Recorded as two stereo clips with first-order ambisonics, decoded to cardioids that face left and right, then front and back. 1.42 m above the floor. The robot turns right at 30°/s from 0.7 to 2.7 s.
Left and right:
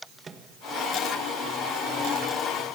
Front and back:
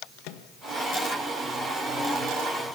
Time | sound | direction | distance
0.2 | a microwave | 15° right | 1.5 m